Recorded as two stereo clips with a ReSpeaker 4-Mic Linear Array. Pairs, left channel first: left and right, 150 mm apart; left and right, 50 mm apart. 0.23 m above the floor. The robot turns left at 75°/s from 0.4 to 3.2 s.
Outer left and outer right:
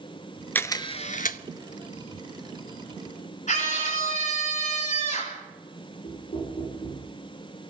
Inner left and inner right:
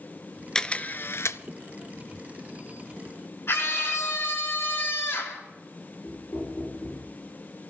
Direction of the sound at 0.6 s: 170° left.